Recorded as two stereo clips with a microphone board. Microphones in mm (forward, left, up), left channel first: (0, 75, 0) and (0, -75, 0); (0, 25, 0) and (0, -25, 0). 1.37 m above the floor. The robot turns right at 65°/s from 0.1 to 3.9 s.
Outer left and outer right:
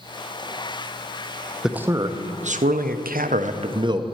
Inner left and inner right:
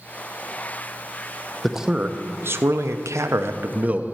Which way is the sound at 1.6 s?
Straight behind.